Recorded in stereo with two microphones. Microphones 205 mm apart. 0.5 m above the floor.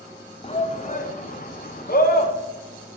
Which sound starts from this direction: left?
A shout, at 0.4 s.